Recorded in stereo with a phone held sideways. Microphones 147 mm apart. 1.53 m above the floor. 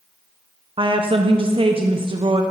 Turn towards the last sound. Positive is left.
turn(degrees=-35)  # may be behind; listen again after turning